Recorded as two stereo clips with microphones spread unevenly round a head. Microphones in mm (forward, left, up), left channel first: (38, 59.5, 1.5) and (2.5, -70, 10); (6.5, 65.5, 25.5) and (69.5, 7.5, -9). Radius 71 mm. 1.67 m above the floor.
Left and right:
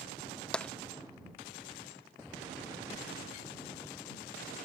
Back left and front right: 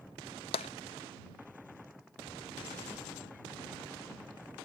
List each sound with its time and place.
0.5 s tapping: 160° left